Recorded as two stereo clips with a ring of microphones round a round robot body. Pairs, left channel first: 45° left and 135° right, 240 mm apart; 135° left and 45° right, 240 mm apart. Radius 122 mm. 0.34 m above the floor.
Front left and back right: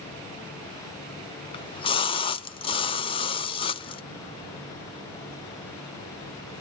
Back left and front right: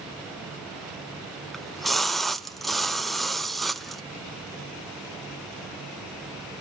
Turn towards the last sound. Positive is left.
turn(degrees=45)